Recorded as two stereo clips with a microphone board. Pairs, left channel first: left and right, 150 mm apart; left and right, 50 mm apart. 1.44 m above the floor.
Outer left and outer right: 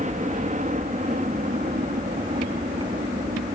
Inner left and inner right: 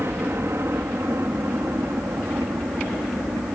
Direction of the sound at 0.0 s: 55° right (ahead or behind).